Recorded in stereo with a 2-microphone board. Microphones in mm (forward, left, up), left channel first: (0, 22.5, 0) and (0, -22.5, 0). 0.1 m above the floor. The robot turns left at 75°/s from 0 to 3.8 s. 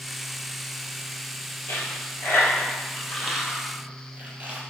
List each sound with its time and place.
1.7 s a dropped coin: 55° left (ahead or behind), 0.9 m; by 4.6 s 35° right (ahead or behind), 0.9 m